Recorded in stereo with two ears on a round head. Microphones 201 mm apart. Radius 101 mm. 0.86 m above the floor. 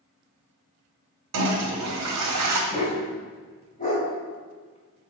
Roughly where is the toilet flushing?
Right.